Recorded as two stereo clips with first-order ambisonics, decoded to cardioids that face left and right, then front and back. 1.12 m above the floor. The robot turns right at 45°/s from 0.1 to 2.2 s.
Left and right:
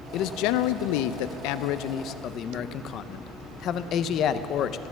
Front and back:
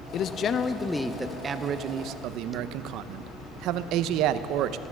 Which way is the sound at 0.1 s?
50° left.